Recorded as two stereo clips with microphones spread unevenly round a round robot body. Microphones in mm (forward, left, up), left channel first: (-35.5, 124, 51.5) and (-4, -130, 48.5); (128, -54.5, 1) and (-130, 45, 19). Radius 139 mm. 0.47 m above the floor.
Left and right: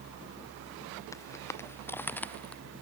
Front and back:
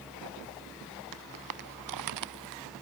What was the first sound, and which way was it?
Footsteps, 175° left.